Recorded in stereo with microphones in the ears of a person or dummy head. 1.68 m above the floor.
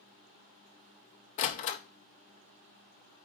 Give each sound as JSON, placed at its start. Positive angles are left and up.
{"t": 1.4, "sound": "a door slam", "side_deg": 50, "distance_m": 0.6}